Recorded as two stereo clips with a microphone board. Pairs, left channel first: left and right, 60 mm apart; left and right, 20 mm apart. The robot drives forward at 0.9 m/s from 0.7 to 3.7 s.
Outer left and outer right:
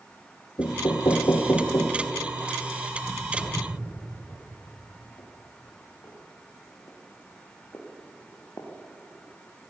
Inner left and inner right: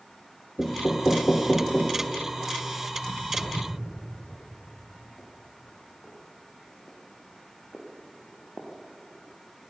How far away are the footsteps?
About 7.5 m.